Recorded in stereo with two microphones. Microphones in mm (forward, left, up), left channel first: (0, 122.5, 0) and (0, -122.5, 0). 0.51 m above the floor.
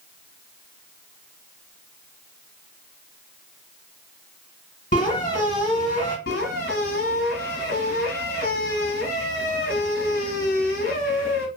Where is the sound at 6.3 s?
55° left (ahead or behind), 0.9 m.